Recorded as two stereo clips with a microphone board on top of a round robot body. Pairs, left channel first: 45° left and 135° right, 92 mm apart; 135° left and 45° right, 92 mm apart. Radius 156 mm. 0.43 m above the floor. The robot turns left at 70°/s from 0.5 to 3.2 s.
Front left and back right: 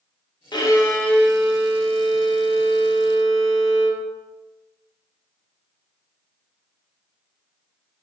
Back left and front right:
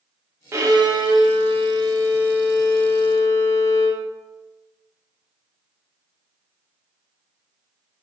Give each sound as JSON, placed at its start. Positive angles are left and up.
{"t": 0.5, "sound": "a violin", "azimuth_deg": 15, "distance_m": 0.8}